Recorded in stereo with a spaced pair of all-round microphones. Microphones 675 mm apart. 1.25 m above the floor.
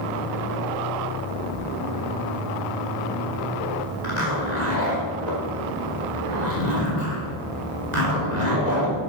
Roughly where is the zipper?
Right.